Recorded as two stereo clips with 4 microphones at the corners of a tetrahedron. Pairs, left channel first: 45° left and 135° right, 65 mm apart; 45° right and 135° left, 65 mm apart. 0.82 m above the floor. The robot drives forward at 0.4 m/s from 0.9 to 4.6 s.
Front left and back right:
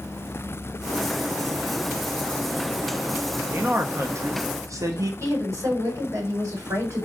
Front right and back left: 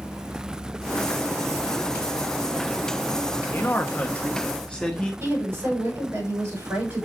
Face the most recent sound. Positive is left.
turn(degrees=-175)